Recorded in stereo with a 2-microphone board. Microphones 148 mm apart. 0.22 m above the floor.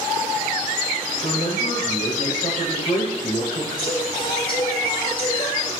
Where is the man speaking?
40° left (ahead or behind), 7 m.